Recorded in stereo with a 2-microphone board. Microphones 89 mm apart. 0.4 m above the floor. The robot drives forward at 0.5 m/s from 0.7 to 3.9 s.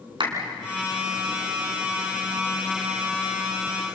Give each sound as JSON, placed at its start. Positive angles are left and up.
{"t": 0.2, "sound": "a clap", "side_deg": -65, "distance_m": 3.5}